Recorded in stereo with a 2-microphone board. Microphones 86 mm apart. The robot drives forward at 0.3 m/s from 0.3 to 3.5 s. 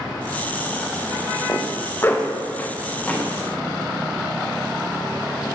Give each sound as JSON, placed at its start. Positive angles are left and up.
{"t": 1.5, "sound": "a zipper", "side_deg": 35, "distance_m": 0.5}